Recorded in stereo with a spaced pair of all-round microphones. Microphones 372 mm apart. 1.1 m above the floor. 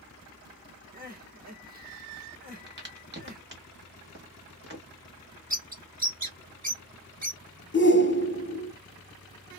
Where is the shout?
30° left (ahead or behind), 0.6 m.